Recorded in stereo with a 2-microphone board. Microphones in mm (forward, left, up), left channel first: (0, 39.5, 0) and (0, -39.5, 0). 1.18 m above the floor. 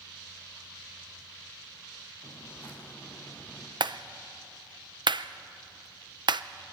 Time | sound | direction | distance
2.2 | footsteps | 25° left (ahead or behind) | 4 m
3.8 | a clap | 65° right (ahead or behind) | 0.5 m